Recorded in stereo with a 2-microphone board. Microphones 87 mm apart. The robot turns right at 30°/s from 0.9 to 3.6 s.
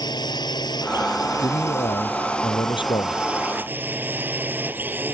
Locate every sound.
0.0 s a drone: 120° left; by 5.2 s 155° right
1.4 s a man speaking: 60° left; by 3.2 s 115° left